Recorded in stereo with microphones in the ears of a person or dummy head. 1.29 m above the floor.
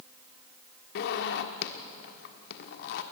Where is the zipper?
65° left (ahead or behind), 1.4 m.